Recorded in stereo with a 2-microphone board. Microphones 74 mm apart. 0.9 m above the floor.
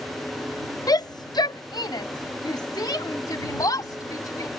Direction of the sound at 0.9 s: 55° left (ahead or behind).